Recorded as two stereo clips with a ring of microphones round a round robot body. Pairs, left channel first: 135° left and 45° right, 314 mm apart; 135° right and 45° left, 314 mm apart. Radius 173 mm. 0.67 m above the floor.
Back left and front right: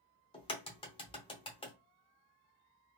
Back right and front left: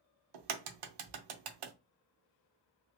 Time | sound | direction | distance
0.3 | a crack | 60° left | 0.7 m